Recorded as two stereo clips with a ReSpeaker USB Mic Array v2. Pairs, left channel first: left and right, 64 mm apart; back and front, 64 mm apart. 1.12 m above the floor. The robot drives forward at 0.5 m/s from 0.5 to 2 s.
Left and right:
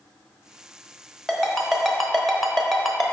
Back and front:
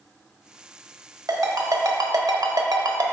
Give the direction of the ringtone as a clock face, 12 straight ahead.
12 o'clock.